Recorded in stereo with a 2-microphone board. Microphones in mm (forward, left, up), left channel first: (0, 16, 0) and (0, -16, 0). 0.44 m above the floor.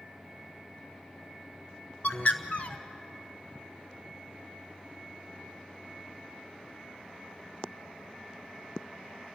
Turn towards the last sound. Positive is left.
turn(degrees=50)  # may be behind; listen again after turning